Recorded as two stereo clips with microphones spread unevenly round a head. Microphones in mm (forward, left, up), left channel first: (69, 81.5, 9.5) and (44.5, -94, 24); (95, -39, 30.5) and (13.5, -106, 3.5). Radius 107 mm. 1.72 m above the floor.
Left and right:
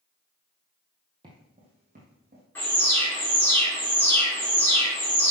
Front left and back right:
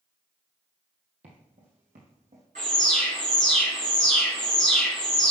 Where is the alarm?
165° left, 2.5 m.